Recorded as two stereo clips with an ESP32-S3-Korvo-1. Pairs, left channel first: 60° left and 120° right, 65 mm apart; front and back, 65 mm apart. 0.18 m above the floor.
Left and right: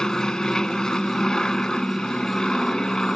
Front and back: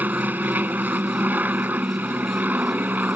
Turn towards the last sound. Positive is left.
turn(degrees=135)